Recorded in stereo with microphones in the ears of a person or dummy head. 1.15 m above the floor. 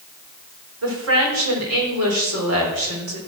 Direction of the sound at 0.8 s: 75° right (ahead or behind).